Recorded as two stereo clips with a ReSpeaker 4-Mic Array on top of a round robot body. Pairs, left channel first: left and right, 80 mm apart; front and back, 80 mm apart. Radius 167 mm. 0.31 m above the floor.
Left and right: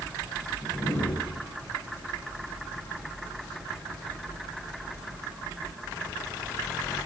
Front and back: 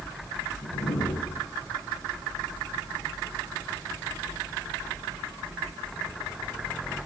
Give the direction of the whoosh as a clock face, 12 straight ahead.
11 o'clock.